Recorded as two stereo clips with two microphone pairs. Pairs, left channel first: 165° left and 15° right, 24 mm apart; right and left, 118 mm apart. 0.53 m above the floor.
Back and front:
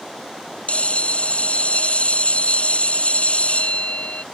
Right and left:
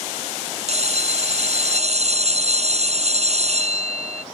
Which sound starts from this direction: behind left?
A bell, at 0.7 s.